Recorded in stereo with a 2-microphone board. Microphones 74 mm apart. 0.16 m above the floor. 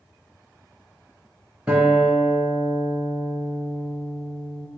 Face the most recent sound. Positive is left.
turn(degrees=-15)  # may be behind; listen again after turning